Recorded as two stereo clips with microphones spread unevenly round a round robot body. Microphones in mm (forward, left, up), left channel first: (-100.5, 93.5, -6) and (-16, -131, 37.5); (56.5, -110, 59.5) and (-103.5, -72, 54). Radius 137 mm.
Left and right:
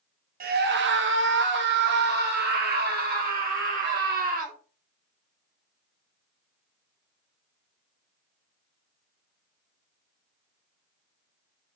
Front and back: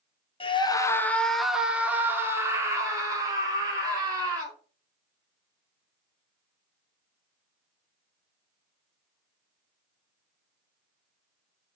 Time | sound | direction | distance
0.4 | a scream | 35° right | 0.7 m